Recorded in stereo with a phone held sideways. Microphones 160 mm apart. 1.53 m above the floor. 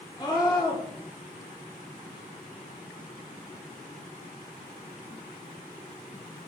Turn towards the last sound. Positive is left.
turn(degrees=25)  # may be behind; listen again after turning